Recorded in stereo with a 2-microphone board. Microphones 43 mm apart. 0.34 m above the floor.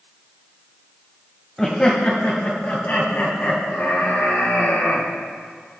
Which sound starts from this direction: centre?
Laughter, at 1.6 s.